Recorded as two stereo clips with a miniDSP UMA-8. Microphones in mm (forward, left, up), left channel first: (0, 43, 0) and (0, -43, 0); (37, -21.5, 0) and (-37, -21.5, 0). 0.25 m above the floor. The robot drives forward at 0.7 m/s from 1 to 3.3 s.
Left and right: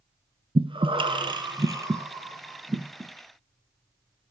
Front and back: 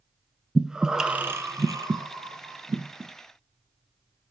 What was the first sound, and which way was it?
Breathing, 100° right.